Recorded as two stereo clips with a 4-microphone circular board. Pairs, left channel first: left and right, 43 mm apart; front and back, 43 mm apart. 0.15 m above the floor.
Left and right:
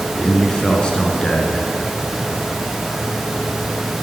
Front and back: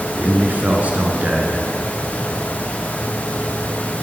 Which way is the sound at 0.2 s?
150° left.